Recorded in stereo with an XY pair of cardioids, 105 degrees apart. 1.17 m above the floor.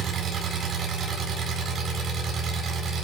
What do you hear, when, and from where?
0.0 s an engine running: 55° right, 9.5 m